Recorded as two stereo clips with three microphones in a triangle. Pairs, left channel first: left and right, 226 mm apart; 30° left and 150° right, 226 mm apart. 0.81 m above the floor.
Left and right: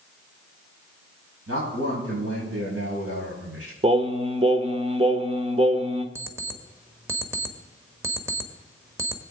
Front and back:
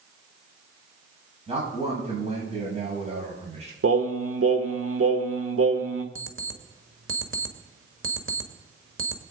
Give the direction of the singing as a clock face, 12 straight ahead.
5 o'clock.